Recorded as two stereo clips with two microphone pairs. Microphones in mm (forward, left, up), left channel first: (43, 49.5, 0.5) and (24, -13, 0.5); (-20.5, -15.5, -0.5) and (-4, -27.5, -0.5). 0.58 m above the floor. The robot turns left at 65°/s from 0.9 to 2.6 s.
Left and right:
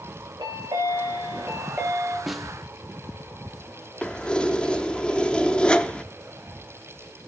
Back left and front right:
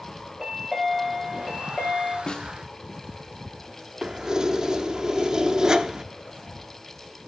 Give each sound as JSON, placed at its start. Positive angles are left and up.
{"t": 0.4, "sound": "a chime", "azimuth_deg": -110, "distance_m": 3.5}
{"t": 2.3, "sound": "a snare drum", "azimuth_deg": 165, "distance_m": 0.5}
{"t": 4.0, "sound": "keys jangling", "azimuth_deg": 5, "distance_m": 0.6}